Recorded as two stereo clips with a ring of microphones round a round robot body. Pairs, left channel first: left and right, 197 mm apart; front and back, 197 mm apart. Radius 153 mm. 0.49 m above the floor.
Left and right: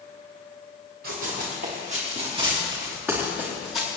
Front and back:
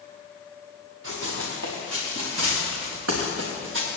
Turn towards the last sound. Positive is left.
turn(degrees=160)